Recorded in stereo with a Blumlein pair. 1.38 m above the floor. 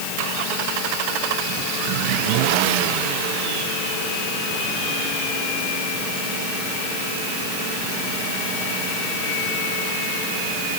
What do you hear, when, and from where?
Only background noise.